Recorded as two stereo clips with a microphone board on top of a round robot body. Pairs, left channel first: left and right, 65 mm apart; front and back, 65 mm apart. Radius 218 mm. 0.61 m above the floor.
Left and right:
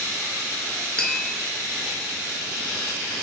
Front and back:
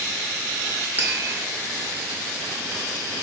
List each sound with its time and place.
1.0 s tapping: 150° left, 1.0 m